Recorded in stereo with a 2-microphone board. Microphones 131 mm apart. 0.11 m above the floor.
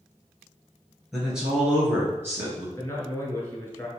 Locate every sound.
1.1 s a man speaking: 5° right (ahead or behind), 1.8 m; by 2.7 s 20° right (ahead or behind), 1.5 m
2.8 s a man speaking: 20° left (ahead or behind), 1.3 m